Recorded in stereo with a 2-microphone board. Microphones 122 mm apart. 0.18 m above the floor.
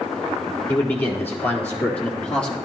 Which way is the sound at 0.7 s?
20° left (ahead or behind).